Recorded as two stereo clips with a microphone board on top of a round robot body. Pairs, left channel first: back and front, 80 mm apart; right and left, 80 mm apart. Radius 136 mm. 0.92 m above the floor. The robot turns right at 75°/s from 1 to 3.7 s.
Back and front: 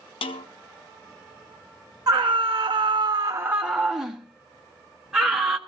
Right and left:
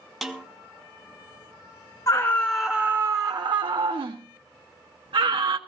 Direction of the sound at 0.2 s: Straight behind.